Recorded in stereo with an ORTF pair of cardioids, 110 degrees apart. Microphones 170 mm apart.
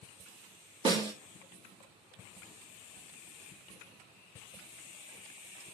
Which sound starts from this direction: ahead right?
A snare drum, at 0.8 s.